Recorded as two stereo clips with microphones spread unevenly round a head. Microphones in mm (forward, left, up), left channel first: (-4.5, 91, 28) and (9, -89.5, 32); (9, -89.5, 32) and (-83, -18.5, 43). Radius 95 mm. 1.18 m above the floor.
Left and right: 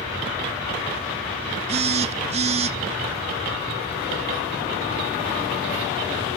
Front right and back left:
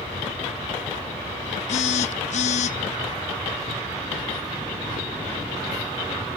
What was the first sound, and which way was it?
A phone buzzing, 35° right.